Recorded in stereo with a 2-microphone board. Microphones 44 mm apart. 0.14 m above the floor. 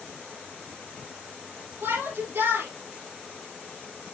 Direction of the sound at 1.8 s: 65° right (ahead or behind).